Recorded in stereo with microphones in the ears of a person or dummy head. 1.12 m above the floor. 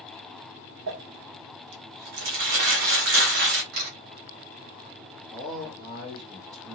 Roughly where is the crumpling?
Right.